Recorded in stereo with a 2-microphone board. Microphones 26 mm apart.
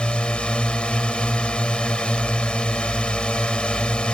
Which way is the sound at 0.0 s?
40° left (ahead or behind).